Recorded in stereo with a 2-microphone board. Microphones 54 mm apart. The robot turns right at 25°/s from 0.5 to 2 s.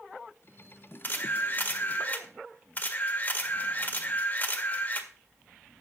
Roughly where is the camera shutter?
Left.